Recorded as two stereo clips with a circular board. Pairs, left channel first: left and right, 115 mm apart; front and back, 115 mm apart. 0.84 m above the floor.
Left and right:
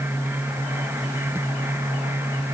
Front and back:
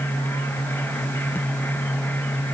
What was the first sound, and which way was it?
Only background noise.